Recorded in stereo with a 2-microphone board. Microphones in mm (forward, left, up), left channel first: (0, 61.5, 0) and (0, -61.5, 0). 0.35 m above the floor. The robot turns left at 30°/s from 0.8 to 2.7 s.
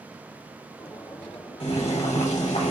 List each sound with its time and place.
1.6 s boiling: 105° left, 1.4 m; by 2.7 s 70° left, 1.4 m